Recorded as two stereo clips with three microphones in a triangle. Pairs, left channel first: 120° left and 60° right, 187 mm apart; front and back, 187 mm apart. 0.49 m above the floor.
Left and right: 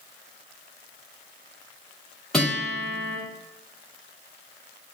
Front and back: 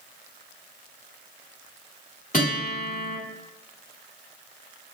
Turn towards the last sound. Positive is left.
turn(degrees=30)